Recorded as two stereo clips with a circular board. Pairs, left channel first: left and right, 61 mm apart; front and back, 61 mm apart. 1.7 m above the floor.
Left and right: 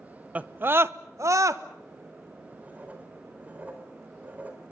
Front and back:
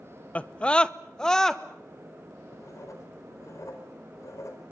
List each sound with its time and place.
0.3 s a scream: 45° right, 0.7 m; by 1.6 s 80° right, 1.3 m
2.5 s writing: 30° right, 4.5 m